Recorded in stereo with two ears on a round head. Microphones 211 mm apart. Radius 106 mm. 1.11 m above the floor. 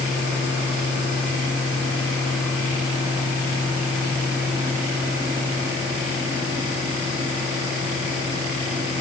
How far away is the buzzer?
No buzzer in this recording.